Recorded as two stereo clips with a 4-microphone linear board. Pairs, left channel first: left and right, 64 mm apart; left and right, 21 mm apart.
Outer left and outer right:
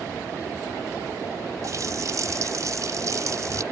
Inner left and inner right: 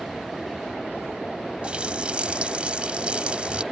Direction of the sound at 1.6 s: 60° right (ahead or behind).